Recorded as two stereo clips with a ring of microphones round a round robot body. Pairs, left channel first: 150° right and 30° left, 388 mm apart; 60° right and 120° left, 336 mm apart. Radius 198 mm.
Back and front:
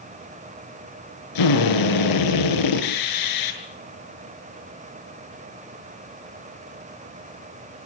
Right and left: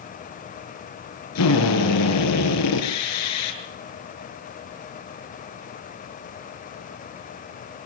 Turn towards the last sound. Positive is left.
turn(degrees=-115)